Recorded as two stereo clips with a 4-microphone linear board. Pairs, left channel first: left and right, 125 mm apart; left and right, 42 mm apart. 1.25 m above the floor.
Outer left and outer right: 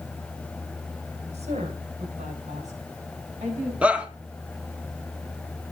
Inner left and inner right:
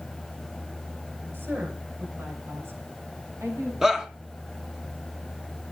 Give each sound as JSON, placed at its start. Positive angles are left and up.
{"t": 1.3, "sound": "a woman speaking", "side_deg": -60, "distance_m": 5.5}
{"t": 3.8, "sound": "a shout", "side_deg": -10, "distance_m": 1.9}